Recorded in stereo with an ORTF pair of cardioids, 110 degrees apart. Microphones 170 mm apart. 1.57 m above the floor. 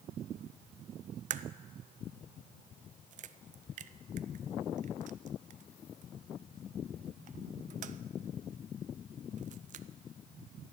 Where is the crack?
45° right, 0.6 m.